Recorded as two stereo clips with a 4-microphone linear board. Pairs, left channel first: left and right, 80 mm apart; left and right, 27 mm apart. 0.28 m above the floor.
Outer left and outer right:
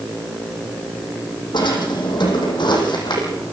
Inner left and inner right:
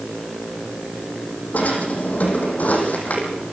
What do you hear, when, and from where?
1.5 s a drawer: 70° left (ahead or behind), 6 m